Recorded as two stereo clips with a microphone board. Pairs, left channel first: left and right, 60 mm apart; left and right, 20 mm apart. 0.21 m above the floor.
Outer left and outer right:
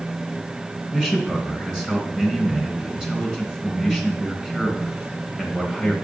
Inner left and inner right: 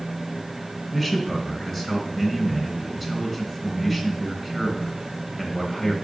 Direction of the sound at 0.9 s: 10° right (ahead or behind).